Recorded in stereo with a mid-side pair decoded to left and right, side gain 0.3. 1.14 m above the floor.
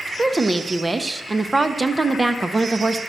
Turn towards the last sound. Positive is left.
turn(degrees=-30)